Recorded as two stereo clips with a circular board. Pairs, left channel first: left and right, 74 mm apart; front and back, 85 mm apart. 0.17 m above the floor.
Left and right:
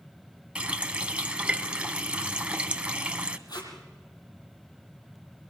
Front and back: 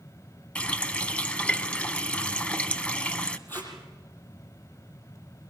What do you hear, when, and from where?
0.6 s a running tap: 50° right, 0.9 m
3.5 s tape being pulled: 65° left, 5 m